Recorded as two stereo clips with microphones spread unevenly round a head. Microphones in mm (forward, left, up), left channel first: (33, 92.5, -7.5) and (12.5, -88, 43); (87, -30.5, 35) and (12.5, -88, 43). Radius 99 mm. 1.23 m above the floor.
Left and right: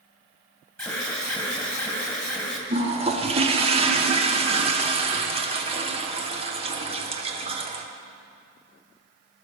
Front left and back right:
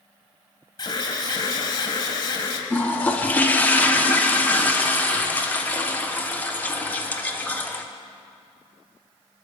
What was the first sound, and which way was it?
An alarm, 10° left.